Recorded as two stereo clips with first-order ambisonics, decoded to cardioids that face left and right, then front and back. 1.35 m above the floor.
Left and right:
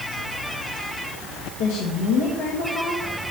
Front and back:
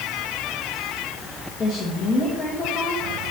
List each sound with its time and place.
1.6 s a woman speaking: 75° left, 2 m